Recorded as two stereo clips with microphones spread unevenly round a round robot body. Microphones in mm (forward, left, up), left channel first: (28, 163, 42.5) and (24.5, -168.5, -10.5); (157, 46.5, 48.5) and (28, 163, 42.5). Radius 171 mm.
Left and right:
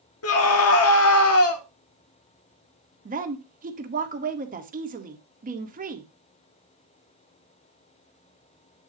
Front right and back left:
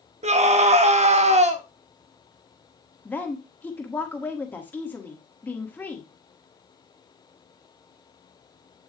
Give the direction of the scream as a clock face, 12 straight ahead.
8 o'clock.